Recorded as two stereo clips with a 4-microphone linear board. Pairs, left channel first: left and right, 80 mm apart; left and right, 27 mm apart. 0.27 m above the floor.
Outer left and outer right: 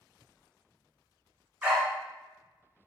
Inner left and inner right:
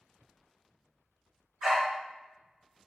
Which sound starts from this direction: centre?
A dog barking, at 1.6 s.